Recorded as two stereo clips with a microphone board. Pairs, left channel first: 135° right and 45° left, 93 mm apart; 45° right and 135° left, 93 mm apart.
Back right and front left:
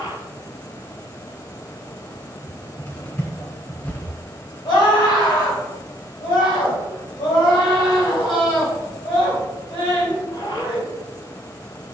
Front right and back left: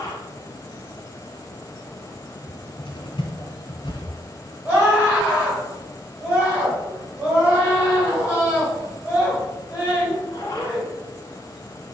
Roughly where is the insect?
Right.